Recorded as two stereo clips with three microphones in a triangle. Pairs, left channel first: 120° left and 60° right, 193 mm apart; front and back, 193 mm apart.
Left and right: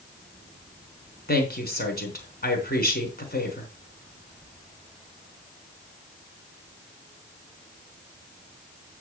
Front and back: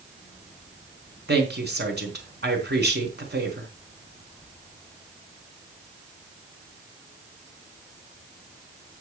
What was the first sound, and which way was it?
A woman speaking, 155° left.